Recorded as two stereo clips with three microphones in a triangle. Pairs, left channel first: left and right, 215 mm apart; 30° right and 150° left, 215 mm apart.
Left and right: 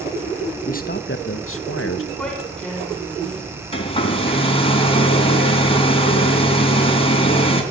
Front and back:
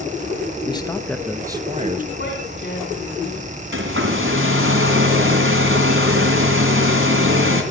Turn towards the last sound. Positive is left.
turn(degrees=150)